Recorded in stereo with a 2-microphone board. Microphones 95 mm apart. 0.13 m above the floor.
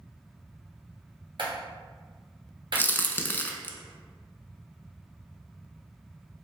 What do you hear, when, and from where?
1.4 s a clap: 55° right (ahead or behind), 1.8 m
2.8 s a crack: 20° left (ahead or behind), 0.6 m